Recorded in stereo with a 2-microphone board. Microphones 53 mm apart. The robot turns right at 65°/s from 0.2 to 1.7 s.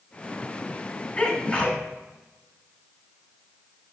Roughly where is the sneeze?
Left.